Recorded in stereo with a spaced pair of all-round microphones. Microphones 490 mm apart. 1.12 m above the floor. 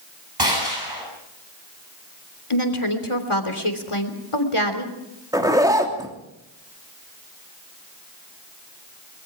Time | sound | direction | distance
0.4 | a gunshot | 55° right (ahead or behind) | 9 m
2.5 | a woman speaking | 85° left | 3 m
5.3 | a zipper | 5° right (ahead or behind) | 3 m